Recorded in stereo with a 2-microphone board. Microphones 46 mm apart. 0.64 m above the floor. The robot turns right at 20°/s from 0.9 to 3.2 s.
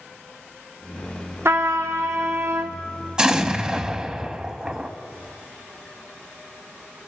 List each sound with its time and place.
1.4 s a trumpet: 60° right (ahead or behind), 0.7 m
3.2 s an explosion: 15° right (ahead or behind), 0.5 m